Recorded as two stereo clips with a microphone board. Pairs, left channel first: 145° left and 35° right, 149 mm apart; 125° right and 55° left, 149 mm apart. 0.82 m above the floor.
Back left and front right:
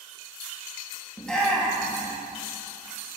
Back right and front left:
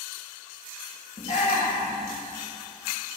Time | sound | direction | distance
1.2 | a shout | 130° right | 1.0 m